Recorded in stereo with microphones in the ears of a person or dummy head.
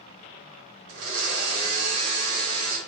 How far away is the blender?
About 2.5 m.